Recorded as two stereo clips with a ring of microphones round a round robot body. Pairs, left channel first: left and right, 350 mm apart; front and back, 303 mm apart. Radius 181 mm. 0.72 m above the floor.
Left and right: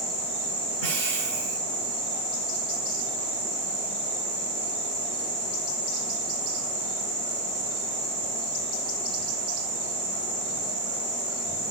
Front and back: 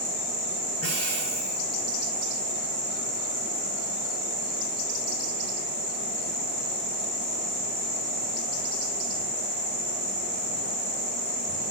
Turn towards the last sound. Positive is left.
turn(degrees=-125)